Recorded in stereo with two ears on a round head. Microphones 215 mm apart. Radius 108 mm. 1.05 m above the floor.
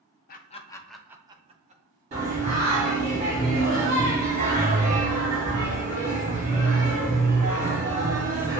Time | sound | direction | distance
0.3 | laughter | 40° left (ahead or behind) | 0.6 m
2.1 | singing | 30° right (ahead or behind) | 2 m